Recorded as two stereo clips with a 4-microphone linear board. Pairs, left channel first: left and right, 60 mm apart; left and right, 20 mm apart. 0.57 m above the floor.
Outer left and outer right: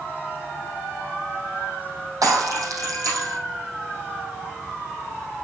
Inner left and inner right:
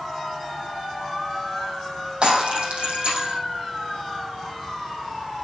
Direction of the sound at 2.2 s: 70° right (ahead or behind).